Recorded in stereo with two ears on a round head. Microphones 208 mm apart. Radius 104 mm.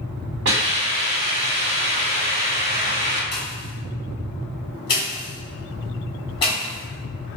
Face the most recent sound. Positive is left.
turn(degrees=20)  # may be behind; listen again after turning